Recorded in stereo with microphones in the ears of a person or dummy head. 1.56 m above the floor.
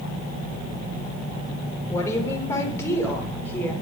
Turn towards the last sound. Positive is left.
turn(degrees=10)  # may be behind; listen again after turning